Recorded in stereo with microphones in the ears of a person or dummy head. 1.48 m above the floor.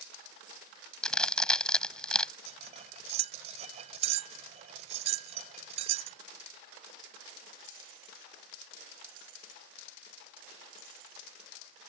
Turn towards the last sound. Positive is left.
turn(degrees=-40)  # may be behind; listen again after turning